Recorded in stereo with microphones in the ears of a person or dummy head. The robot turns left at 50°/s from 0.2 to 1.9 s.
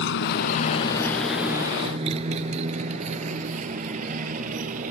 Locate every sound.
0.0 s a motorcycle: 70° left (ahead or behind); by 4.9 s 40° right (ahead or behind)